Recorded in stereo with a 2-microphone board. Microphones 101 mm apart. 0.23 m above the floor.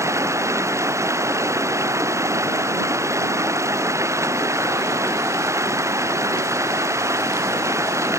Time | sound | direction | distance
0.0 | running water | 30° right (ahead or behind) | ?